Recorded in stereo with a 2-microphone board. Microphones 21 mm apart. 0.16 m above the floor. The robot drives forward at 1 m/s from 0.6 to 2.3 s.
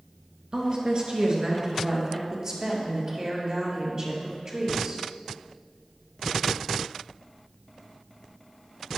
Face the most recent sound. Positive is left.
turn(degrees=-30)  # may be behind; listen again after turning